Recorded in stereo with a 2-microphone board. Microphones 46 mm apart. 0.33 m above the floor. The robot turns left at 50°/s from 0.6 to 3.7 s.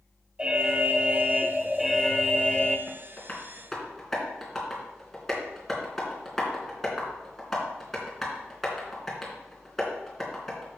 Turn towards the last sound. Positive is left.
turn(degrees=5)  # may be behind; listen again after turning